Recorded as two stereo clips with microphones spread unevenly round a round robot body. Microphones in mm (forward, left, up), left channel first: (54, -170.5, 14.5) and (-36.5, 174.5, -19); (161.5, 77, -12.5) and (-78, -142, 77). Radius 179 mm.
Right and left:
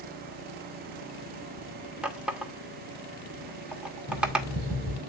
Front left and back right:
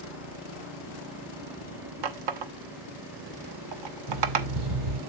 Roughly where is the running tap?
Behind.